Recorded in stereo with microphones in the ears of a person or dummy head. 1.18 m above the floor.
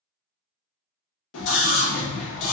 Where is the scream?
85° left, 1.1 m.